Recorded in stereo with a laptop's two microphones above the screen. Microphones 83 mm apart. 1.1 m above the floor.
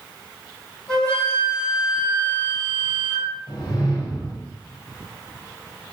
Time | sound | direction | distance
0.9 | a flute | 15° left (ahead or behind) | 1.3 m
3.5 | a whoosh | 55° left (ahead or behind) | 0.8 m